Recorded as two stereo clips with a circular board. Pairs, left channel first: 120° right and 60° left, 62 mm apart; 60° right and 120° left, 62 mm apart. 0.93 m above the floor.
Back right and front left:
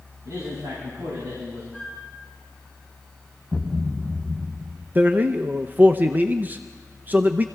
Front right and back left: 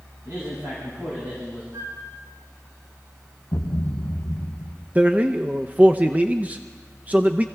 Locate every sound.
0.2 s a man speaking: 80° left, 6 m; by 1.6 s 65° left, 6 m
1.7 s a flute: 140° left, 8 m
3.5 s a thud: 45° right, 2.5 m
5.0 s a man speaking: 80° left, 0.5 m